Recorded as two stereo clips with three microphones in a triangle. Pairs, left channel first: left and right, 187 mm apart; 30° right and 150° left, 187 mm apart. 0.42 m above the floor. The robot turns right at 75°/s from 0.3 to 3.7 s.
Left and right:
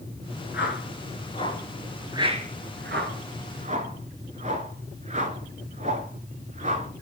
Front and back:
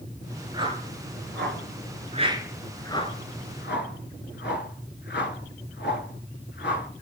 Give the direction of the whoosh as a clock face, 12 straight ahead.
9 o'clock.